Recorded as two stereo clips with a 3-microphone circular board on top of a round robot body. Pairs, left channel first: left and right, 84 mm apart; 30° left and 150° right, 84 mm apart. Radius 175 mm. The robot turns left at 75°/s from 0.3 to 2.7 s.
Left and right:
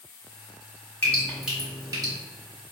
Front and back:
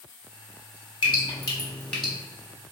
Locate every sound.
1.0 s dripping: 25° left, 1.2 m; by 2.1 s 60° right, 1.2 m